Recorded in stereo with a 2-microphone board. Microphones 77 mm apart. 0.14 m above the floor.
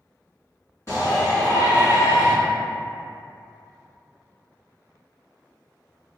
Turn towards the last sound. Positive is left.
turn(degrees=40)  # may be behind; listen again after turning